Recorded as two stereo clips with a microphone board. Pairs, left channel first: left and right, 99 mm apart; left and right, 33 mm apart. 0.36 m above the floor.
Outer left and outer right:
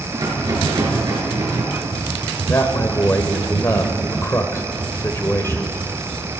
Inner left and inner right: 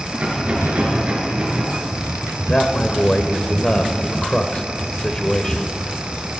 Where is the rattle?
40° right (ahead or behind), 4 m.